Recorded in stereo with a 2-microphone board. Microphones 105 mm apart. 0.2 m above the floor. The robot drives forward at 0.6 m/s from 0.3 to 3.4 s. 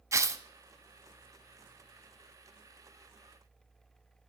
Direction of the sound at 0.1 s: 30° right (ahead or behind).